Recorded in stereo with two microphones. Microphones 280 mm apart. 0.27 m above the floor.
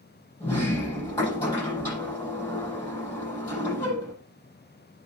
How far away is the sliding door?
About 7.5 m.